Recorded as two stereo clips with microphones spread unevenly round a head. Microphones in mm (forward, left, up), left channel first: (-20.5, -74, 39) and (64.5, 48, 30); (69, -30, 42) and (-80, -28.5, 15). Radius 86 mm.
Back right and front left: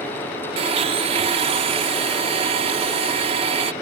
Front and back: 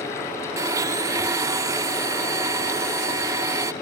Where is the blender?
110° left.